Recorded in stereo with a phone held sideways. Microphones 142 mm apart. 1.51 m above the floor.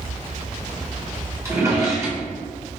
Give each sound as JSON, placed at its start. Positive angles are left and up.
{"t": 1.4, "sound": "a drawer", "side_deg": -20, "distance_m": 0.7}